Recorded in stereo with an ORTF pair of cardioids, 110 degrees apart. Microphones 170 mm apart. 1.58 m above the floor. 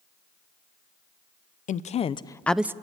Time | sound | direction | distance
1.7 | a woman speaking | 50° left | 0.9 m